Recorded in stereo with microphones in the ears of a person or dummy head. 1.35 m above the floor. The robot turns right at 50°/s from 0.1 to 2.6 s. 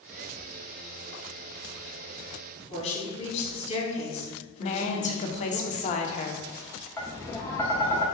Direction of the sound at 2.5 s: 35° left (ahead or behind).